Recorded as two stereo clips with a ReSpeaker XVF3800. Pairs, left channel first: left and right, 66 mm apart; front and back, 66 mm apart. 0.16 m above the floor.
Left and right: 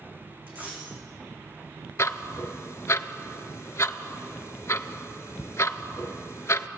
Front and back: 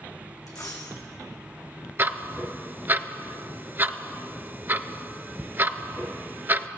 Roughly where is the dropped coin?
Ahead right.